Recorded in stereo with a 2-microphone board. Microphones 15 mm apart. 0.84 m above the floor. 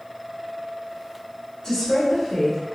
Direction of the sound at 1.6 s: 50° left (ahead or behind).